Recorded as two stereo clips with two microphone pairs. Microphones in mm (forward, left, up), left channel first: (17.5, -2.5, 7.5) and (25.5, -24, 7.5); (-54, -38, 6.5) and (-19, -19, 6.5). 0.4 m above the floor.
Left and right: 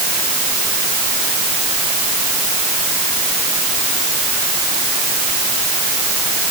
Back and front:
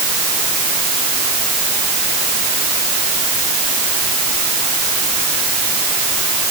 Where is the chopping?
I don't hear chopping.